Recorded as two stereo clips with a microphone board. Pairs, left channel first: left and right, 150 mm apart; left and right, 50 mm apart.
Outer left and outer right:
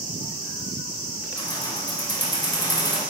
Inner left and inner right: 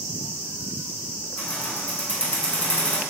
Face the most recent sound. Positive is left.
turn(degrees=25)  # may be behind; listen again after turning